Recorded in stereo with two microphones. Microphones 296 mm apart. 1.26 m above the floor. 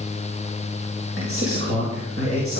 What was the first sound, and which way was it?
A man speaking, 50° right (ahead or behind).